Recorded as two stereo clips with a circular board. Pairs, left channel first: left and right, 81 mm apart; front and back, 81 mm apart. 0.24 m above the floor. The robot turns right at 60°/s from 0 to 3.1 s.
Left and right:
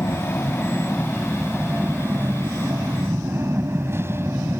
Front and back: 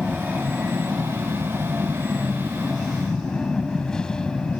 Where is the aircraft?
100° left; by 4.6 s 70° right.